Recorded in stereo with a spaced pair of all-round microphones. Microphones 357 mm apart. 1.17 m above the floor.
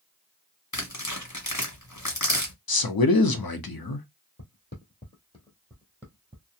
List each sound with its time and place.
0.7 s tearing paper: 50° left (ahead or behind), 1.2 m
2.7 s a man speaking: 80° left, 0.6 m
4.4 s footsteps: 40° left (ahead or behind), 1.5 m; by 6.5 s 15° right (ahead or behind), 1.3 m